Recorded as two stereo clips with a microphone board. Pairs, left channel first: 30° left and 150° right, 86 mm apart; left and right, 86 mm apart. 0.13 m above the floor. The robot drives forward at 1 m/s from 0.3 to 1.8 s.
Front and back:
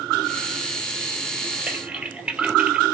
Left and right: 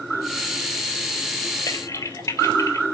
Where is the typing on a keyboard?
130° left, 3 m; by 2.9 s 135° left, 3.5 m.